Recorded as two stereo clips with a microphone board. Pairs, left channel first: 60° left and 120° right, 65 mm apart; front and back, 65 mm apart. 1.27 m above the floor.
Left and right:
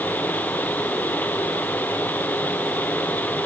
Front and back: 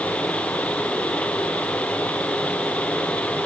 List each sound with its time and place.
Only background noise.